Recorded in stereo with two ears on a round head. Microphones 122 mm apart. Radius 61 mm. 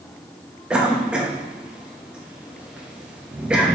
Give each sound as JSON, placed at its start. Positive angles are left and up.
{"t": 0.7, "sound": "a cough", "side_deg": -10, "distance_m": 1.1}